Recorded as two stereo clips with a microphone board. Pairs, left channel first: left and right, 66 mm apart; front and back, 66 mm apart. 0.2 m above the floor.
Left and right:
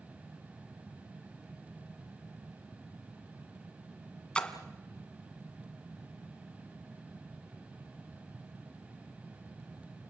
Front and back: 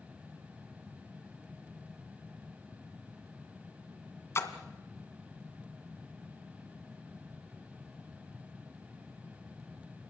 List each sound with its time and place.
4.3 s a splash: 20° left, 1.7 m